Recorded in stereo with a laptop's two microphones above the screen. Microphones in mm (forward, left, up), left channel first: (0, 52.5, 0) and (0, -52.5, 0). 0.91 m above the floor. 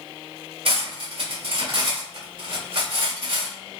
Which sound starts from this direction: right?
Cutlery clinking, at 0.7 s.